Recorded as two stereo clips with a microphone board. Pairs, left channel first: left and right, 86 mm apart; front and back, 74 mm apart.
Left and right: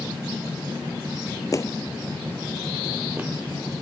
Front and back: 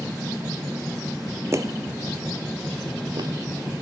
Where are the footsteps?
135° left, 0.8 m; by 3.3 s 160° right, 1.8 m.